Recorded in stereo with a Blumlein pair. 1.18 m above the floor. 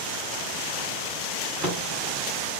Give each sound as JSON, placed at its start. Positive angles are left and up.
{"t": 1.4, "sound": "a drawer", "azimuth_deg": -35, "distance_m": 1.5}